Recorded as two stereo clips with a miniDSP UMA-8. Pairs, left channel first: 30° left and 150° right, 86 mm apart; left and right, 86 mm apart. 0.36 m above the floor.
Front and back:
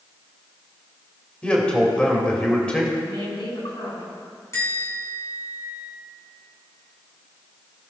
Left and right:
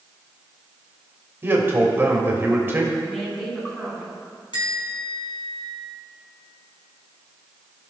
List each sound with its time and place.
1.4 s a man speaking: 40° right, 1.8 m
3.0 s a woman speaking: 10° left, 3 m
4.5 s a bell: 80° left, 3.5 m